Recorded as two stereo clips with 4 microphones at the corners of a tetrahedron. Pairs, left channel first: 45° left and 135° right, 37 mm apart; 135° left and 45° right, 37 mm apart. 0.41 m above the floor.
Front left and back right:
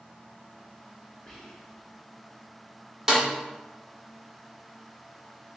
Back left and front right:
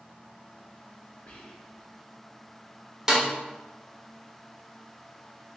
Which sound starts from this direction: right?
A snare drum, at 3.1 s.